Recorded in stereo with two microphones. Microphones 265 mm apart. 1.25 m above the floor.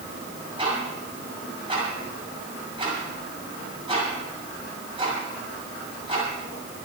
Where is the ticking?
20° right (ahead or behind), 6.5 m.